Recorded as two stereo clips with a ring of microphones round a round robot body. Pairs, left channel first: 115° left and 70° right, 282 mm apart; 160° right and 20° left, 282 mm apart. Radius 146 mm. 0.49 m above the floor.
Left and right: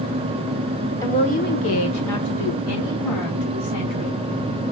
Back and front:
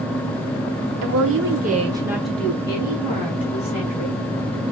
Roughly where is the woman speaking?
Ahead left.